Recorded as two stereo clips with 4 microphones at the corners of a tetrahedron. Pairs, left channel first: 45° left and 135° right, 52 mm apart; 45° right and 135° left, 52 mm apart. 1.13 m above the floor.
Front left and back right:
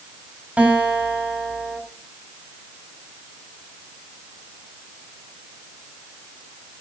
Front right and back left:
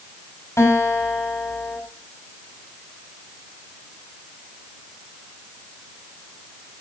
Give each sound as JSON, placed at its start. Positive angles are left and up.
{"t": 0.6, "sound": "a guitar", "azimuth_deg": -70, "distance_m": 6.5}